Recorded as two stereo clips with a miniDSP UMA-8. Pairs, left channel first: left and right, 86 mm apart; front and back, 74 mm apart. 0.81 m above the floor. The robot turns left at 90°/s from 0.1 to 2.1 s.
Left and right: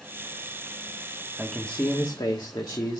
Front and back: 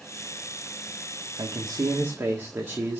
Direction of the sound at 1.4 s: 170° right.